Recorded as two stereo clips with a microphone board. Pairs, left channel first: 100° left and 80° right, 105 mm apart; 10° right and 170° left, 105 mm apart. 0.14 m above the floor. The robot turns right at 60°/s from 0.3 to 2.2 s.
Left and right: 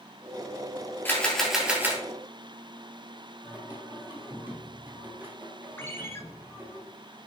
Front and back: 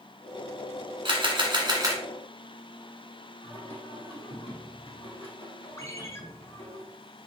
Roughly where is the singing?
Ahead.